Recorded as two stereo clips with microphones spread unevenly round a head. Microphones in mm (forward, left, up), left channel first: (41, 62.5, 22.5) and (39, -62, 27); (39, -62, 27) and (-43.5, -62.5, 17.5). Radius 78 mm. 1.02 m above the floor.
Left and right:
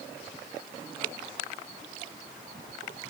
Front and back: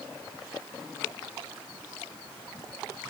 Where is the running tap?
I don't hear a running tap.